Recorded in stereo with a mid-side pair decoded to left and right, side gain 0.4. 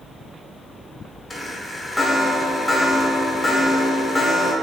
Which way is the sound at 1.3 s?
25° left.